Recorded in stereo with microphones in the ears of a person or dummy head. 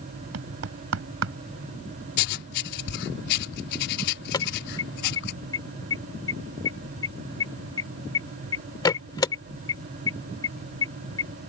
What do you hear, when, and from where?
0.3 s knocking: 80° right
2.2 s writing: 60° left (ahead or behind)
4.3 s an alarm: 20° left (ahead or behind)